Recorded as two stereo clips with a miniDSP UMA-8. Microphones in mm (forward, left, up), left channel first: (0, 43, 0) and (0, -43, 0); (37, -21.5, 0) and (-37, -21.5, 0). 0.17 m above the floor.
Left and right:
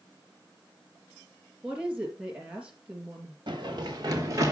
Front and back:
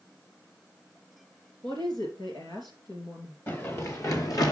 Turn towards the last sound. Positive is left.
turn(degrees=-35)